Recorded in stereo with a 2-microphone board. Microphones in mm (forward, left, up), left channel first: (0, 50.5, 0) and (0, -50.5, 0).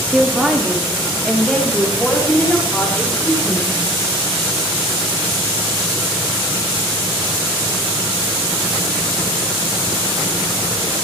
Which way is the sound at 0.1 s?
5° right (ahead or behind).